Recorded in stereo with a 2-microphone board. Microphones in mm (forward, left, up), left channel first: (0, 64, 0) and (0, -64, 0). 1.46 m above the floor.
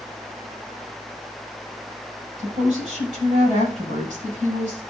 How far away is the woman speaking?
About 7.5 m.